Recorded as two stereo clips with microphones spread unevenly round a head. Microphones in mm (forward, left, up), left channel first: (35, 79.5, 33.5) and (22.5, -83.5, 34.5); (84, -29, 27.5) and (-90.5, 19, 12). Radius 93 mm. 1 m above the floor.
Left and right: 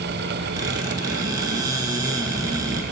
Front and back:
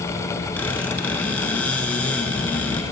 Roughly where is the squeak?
Right.